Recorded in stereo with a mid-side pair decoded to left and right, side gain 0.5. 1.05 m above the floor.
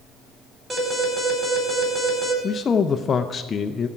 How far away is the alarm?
About 4.5 m.